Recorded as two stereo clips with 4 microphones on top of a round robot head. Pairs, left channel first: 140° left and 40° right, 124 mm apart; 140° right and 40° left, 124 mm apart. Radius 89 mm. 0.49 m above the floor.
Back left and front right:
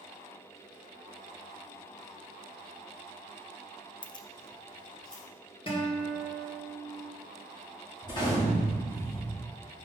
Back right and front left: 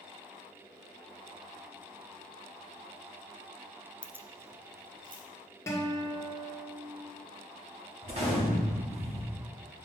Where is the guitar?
160° left, 1.7 m.